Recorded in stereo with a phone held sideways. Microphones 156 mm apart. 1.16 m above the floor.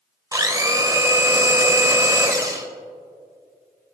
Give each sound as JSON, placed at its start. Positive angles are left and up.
{"t": 0.3, "sound": "a blender", "side_deg": -25, "distance_m": 1.1}